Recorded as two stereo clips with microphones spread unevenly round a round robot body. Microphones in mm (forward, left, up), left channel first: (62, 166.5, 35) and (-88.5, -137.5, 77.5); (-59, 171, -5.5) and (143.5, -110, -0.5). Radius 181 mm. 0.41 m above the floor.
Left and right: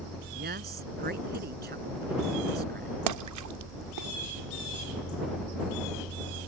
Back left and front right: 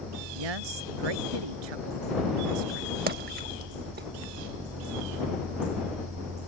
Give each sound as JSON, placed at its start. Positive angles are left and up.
{"t": 0.3, "sound": "a woman speaking", "azimuth_deg": -50}
{"t": 3.1, "sound": "a splash", "azimuth_deg": -110}